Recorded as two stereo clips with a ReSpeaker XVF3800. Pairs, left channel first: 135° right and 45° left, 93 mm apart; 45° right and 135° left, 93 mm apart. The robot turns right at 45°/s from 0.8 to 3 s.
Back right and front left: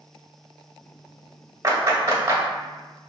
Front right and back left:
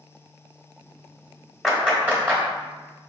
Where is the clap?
50° left, 1.3 m; by 2.4 s 85° left, 1.3 m.